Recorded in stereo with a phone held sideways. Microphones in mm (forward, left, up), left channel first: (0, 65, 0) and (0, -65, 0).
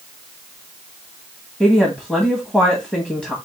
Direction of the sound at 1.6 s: 10° right (ahead or behind).